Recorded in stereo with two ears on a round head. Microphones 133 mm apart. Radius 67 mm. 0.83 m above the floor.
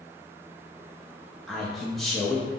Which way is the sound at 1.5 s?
Centre (ahead or behind).